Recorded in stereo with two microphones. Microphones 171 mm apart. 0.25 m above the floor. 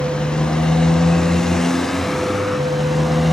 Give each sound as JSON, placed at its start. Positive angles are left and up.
{"t": 0.0, "sound": "a motorcycle", "side_deg": 5}